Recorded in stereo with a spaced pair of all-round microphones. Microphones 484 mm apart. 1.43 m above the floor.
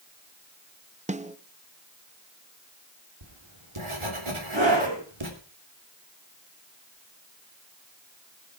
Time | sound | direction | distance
1.1 | a snare drum | 15° right (ahead or behind) | 0.7 m
3.2 | writing | 80° right | 3 m
4.5 | a scream | 60° right (ahead or behind) | 8 m